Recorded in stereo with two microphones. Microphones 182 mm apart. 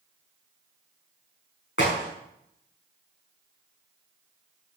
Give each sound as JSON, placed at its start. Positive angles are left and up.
{"t": 1.8, "sound": "a crack", "side_deg": 80, "distance_m": 5.5}